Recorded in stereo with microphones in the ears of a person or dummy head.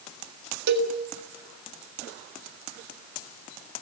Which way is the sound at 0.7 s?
55° right (ahead or behind).